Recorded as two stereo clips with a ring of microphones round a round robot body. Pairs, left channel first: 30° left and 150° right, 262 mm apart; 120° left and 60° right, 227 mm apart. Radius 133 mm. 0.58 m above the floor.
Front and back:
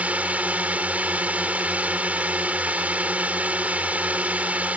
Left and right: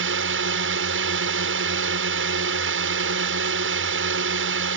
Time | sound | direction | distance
0.0 | a drone | 65° right | ?